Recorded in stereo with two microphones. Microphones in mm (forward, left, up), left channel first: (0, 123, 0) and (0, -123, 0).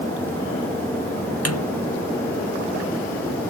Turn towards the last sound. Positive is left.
turn(degrees=75)  # may be behind; listen again after turning